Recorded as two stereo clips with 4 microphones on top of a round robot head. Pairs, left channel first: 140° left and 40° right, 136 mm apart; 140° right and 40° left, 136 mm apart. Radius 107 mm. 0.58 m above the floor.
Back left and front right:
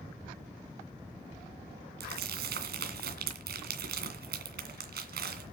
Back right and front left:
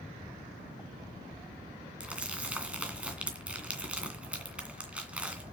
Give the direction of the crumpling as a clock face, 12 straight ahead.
1 o'clock.